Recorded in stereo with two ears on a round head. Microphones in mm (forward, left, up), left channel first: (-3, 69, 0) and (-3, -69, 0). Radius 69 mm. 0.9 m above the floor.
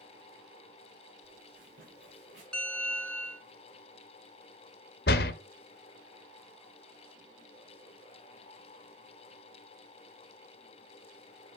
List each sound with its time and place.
1.2 s footsteps: 60° right (ahead or behind), 6.5 m
2.5 s a bell: 5° left (ahead or behind), 1.3 m
5.1 s a door slam: 70° left (ahead or behind), 0.7 m